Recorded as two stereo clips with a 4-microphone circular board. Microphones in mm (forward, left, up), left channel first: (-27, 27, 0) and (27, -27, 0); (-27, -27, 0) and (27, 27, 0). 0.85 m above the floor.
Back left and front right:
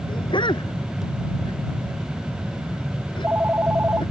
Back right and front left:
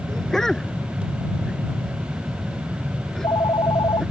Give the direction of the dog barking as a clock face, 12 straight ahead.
7 o'clock.